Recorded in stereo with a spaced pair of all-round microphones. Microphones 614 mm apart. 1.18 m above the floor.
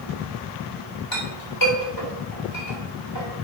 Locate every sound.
1.1 s a clink: 35° left (ahead or behind), 3 m